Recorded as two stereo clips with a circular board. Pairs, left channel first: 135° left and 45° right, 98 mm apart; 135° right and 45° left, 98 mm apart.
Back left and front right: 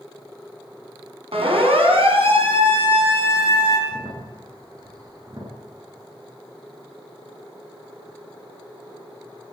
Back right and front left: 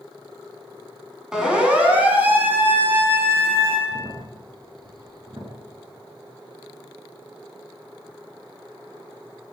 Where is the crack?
5° left, 5 m.